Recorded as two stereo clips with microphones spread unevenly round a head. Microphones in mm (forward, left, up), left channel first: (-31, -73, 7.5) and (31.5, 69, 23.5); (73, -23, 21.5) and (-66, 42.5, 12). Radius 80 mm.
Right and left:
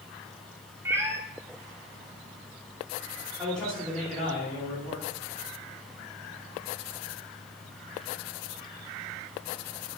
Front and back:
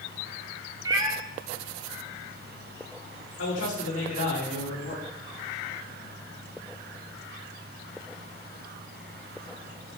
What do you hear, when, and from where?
0.8 s a cat meowing: 110° left, 0.8 m
3.4 s a man speaking: 30° right, 3.5 m